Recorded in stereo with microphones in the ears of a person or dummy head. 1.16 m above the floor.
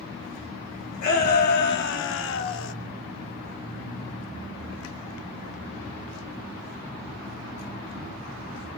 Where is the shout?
50° left (ahead or behind), 1.6 m; by 2.8 s 60° left (ahead or behind), 0.7 m.